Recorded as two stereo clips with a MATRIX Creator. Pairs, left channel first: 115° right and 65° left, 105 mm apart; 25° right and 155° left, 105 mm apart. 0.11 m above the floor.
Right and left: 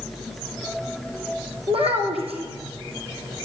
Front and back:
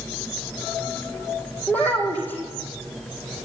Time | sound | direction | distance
1.7 | a child speaking | 50° left | 3 m